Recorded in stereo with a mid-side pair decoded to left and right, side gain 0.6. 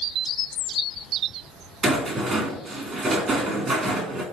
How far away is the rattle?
About 1.8 m.